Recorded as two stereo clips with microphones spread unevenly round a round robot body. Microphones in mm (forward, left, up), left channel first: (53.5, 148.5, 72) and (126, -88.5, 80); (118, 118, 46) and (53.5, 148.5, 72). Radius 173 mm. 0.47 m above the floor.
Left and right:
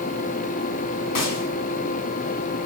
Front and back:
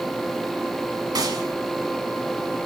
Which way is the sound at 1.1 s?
130° left.